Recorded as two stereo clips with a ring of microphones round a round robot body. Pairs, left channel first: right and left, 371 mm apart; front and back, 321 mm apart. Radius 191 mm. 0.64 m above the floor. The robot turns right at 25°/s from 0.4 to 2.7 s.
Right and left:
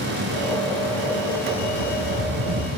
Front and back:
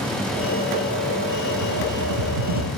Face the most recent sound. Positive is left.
turn(degrees=165)